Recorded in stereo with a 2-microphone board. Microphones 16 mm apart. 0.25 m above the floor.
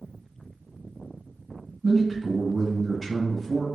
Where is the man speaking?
15° left (ahead or behind), 1.3 m.